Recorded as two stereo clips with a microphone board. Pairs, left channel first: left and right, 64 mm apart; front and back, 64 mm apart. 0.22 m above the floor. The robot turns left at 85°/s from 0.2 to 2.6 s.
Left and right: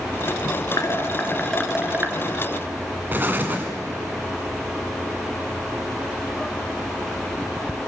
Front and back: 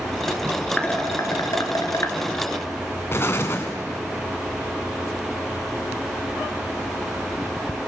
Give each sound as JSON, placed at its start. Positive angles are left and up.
{"t": 0.8, "sound": "dishes clattering", "azimuth_deg": 75, "distance_m": 2.5}
{"t": 3.1, "sound": "an explosion", "azimuth_deg": -40, "distance_m": 2.0}